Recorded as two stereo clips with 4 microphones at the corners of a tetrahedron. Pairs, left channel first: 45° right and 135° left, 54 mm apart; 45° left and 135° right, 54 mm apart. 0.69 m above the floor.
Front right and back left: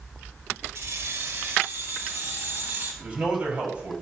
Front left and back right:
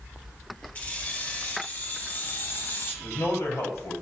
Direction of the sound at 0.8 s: 105° left.